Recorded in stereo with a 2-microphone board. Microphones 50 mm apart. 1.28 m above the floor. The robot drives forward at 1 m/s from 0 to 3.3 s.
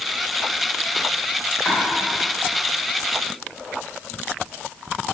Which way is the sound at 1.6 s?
15° left (ahead or behind).